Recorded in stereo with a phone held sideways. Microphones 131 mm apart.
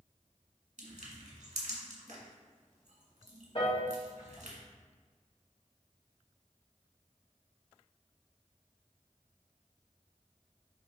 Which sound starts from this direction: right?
Crushing, at 0.8 s.